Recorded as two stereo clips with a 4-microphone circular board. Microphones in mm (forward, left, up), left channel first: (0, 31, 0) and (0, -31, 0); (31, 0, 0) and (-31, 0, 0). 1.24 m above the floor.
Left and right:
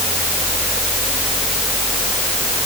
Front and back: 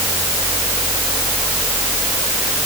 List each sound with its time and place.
Only background noise.